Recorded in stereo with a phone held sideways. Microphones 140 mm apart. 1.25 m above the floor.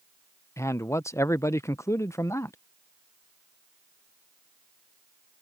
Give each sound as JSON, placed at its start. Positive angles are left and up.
{"t": 0.6, "sound": "a man speaking", "side_deg": 20}